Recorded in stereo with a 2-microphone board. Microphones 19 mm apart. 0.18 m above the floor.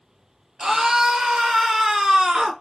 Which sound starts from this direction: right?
A scream, at 0.6 s.